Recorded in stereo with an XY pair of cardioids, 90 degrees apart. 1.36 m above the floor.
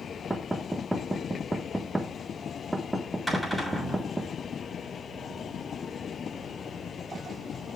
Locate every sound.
0.3 s knocking: 15° right, 1.2 m
3.3 s a cupboard door: 5° left, 5.5 m